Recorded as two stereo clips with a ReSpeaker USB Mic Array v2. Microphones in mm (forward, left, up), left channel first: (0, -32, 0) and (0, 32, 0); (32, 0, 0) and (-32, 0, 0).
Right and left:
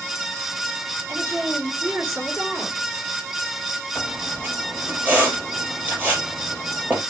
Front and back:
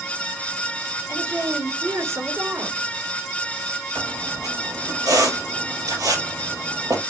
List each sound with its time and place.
1.1 s a woman speaking: 140° left, 3 m
4.0 s a squeak: 155° left, 3.5 m